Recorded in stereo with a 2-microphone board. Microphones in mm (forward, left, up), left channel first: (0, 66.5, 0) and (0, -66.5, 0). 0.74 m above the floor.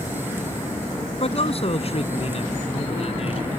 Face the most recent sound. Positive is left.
turn(degrees=50)  # may be behind; listen again after turning